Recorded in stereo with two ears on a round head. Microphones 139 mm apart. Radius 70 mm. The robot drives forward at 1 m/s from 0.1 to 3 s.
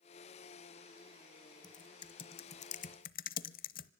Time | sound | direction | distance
1.6 | typing on a keyboard | 25° left (ahead or behind) | 2 m